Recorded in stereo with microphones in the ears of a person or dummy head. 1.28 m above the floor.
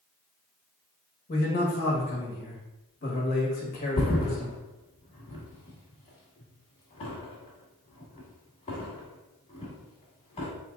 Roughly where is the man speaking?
Left.